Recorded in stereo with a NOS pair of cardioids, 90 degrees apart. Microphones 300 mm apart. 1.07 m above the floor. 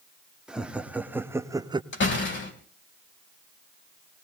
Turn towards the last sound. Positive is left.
turn(degrees=40)